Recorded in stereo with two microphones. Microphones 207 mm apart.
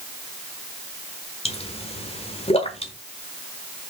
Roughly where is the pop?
Left.